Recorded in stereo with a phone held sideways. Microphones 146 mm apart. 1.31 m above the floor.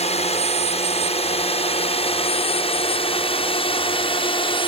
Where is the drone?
45° left (ahead or behind); by 4.7 s 35° left (ahead or behind).